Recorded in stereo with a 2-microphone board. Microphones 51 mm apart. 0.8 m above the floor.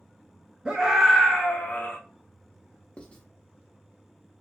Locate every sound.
0.7 s a scream: 20° right (ahead or behind), 0.7 m; by 2.0 s 40° left (ahead or behind), 0.9 m
3.0 s writing: 20° left (ahead or behind), 0.6 m